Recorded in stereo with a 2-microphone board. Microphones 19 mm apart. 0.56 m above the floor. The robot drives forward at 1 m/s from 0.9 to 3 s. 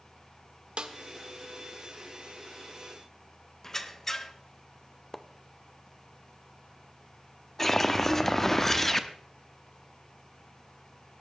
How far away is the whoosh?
About 0.9 m.